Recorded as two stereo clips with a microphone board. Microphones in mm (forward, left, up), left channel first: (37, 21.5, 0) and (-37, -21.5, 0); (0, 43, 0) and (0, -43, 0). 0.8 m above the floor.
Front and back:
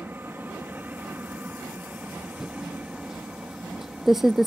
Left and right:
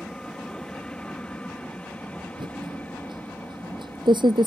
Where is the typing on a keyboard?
65° right.